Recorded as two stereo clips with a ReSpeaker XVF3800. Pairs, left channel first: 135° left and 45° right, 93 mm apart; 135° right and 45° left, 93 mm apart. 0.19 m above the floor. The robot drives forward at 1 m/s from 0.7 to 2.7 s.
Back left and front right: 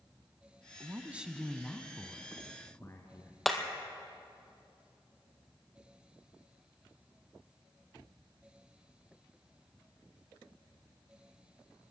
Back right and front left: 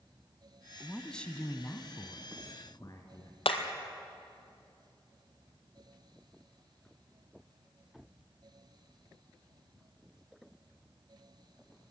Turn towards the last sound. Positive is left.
turn(degrees=-140)